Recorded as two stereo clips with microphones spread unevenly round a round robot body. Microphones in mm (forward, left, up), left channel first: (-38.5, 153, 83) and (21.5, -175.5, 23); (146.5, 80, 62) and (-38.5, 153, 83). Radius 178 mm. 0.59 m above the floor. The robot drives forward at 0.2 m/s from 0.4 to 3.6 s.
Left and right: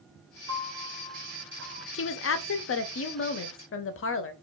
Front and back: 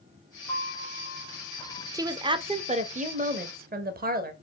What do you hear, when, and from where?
0.5 s a piano: 95° right, 1.7 m; by 1.8 s 110° right, 1.7 m
1.9 s a woman speaking: 90° left, 0.6 m; by 4.3 s 145° left, 0.7 m